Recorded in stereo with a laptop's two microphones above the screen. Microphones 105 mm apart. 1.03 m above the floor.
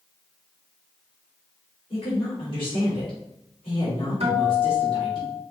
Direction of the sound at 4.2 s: 75° right (ahead or behind).